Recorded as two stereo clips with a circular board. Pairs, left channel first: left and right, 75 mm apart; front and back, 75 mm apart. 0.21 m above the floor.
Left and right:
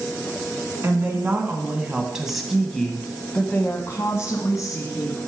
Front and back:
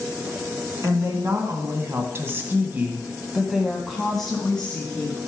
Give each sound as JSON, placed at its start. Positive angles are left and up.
{"t": 0.8, "sound": "a woman speaking", "azimuth_deg": -145, "distance_m": 2.5}